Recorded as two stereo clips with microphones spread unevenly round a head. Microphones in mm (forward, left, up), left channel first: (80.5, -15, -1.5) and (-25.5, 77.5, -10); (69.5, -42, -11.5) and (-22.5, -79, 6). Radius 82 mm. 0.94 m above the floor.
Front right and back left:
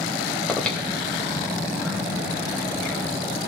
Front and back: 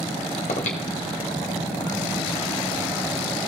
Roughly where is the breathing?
Ahead left.